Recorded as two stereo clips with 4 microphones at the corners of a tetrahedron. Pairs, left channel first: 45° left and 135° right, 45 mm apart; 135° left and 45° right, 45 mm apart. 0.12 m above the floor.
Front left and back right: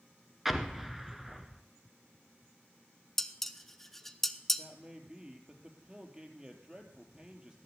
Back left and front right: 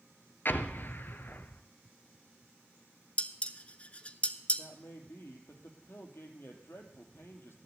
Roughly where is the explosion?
Behind left.